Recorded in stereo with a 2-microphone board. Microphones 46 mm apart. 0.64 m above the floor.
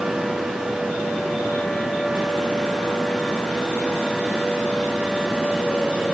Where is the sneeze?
I don't hear a sneeze.